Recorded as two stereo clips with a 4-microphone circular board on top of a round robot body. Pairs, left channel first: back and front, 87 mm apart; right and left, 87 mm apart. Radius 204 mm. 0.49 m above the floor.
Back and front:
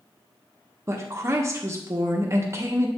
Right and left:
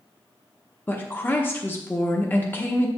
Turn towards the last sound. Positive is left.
turn(degrees=-35)